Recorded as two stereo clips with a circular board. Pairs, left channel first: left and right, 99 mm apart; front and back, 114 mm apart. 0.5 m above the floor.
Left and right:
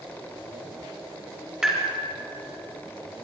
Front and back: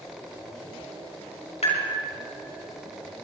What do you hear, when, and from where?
1.6 s tapping: 5° right, 5 m